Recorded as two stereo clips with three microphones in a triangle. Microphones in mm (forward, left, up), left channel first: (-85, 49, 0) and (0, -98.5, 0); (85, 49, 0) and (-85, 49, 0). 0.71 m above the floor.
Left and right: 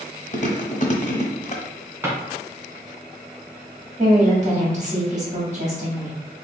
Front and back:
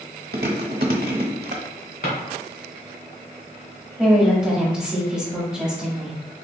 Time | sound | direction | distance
0.3 | chewing | 160° left | 1.0 m
2.0 | a drawer | 15° left | 2.0 m
4.0 | a woman speaking | 95° right | 1.7 m